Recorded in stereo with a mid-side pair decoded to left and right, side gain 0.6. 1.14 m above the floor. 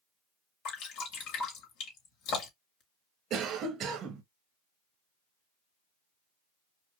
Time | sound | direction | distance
0.7 | dripping | 70° left | 2.5 m
3.3 | a cough | 55° right | 0.9 m